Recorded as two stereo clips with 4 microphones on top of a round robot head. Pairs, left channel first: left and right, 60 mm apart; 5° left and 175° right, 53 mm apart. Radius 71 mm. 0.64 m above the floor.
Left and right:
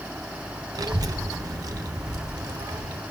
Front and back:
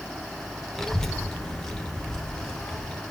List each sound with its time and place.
0.8 s a child speaking: 80° right, 1.2 m; by 3.0 s 70° right, 2.5 m